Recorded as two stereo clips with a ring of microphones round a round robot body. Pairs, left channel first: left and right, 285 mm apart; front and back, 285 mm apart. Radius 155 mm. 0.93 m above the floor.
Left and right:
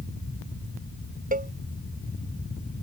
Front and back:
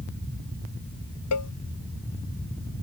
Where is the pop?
No pop in this recording.